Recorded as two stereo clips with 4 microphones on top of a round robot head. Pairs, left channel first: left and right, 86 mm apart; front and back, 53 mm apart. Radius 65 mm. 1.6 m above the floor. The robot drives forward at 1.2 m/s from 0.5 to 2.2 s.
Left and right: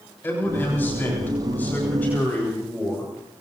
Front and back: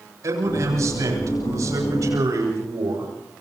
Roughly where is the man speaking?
Behind.